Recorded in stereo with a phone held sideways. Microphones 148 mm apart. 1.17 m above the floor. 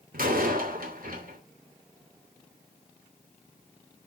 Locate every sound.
0.1 s a door slam: 75° right (ahead or behind), 2.5 m